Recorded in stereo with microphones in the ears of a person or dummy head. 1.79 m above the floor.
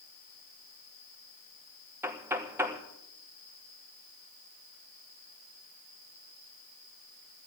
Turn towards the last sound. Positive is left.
turn(degrees=-5)  # may be behind; listen again after turning